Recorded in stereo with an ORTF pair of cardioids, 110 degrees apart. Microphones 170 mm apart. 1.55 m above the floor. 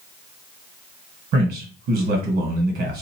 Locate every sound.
1.3 s a man speaking: 70° right, 1.8 m